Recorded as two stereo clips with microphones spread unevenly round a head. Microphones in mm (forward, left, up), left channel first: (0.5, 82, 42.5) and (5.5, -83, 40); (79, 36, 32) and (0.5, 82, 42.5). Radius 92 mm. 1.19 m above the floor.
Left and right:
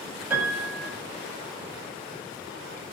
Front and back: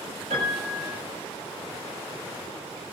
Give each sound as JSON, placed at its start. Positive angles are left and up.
{"t": 0.3, "sound": "a piano", "azimuth_deg": -170, "distance_m": 6.5}